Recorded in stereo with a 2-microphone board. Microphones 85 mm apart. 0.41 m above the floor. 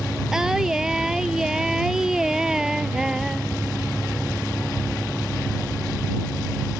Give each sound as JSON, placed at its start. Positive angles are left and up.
{"t": 0.3, "sound": "singing", "side_deg": -5}